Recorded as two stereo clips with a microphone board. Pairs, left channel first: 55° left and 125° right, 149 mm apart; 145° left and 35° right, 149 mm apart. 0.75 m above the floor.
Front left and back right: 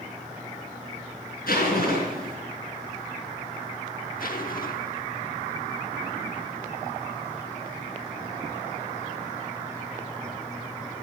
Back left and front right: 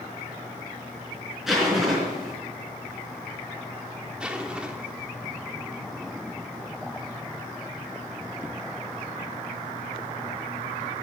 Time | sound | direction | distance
1.5 | a zipper | 55° left | 4 m
4.2 | a zipper | 50° left | 1.1 m